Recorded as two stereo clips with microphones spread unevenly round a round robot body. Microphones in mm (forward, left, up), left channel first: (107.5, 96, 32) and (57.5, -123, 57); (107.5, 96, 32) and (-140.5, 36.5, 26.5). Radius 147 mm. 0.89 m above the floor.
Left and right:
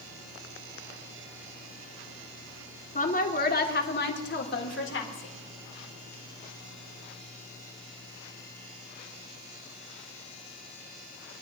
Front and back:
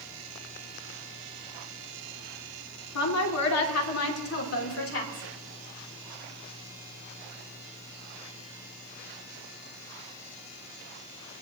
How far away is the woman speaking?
About 2.0 m.